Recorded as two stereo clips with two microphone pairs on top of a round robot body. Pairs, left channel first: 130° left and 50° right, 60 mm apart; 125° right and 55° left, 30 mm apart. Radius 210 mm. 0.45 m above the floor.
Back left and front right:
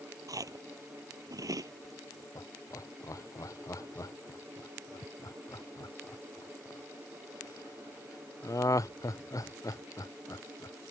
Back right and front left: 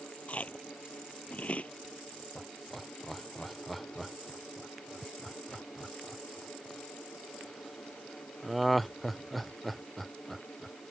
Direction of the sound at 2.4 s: 145° left.